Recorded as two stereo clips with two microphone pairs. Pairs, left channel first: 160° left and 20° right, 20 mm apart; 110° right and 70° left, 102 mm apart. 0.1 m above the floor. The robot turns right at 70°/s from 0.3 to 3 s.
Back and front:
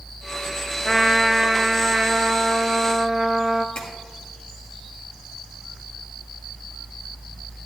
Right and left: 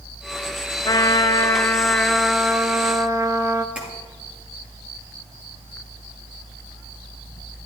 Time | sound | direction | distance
0.8 | a trumpet | 115° right | 0.5 m
3.8 | tapping | 150° left | 2 m